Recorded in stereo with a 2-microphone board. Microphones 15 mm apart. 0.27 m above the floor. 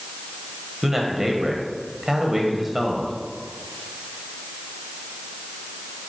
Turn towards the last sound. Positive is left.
turn(degrees=-20)  # may be behind; listen again after turning